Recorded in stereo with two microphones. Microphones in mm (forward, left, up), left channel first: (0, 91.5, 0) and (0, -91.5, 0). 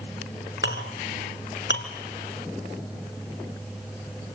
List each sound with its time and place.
0.6 s a clink: 75° left (ahead or behind), 3 m